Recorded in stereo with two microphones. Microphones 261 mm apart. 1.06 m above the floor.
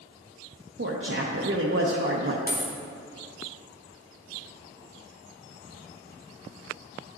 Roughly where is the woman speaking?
Right.